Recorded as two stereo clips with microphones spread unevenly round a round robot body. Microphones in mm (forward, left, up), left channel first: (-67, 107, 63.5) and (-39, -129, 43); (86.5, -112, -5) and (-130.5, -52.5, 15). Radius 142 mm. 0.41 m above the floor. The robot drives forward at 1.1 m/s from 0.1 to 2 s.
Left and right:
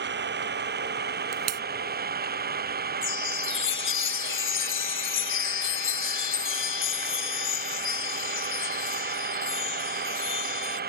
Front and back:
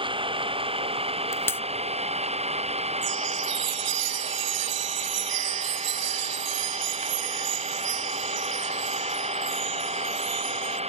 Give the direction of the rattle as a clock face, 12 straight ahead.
I don't hear a rattle.